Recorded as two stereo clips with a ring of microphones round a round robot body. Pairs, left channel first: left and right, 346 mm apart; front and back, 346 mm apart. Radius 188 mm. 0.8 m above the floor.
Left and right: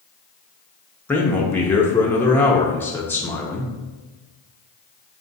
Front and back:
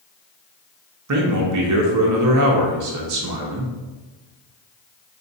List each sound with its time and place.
1.1 s a man speaking: 170° left, 0.6 m